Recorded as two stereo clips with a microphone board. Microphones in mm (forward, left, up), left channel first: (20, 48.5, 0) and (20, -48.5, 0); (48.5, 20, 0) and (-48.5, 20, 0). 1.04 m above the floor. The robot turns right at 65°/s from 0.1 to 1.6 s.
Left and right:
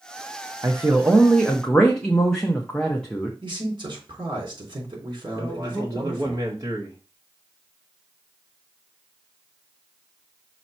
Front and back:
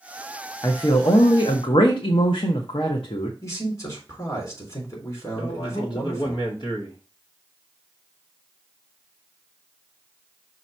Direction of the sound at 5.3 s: 35° right.